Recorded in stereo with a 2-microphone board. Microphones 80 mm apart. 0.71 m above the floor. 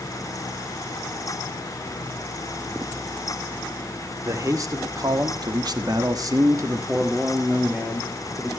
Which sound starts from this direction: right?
A man speaking, at 4.2 s.